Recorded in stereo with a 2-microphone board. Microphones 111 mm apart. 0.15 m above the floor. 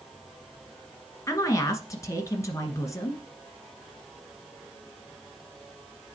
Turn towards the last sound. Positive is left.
turn(degrees=30)  # may be behind; listen again after turning